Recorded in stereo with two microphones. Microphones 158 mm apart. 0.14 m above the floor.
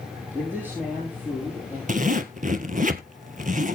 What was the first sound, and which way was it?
A man speaking, 15° right (ahead or behind).